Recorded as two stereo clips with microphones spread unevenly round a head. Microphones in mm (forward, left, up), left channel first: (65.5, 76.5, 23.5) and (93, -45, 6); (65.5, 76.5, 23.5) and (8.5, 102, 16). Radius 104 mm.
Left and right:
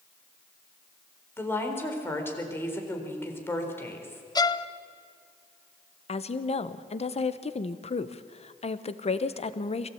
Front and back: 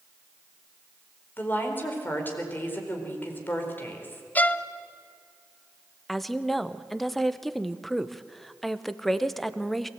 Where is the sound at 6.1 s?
65° left, 1.2 m.